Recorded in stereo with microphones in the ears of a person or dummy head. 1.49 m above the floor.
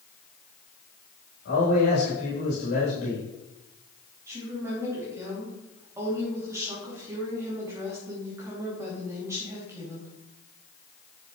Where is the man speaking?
85° left, 3.5 m.